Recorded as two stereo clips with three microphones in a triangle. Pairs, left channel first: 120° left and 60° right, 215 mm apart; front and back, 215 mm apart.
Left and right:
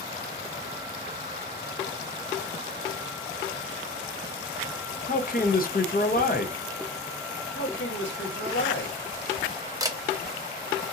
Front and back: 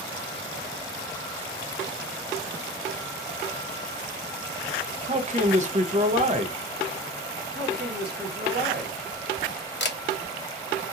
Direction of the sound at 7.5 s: 140° left.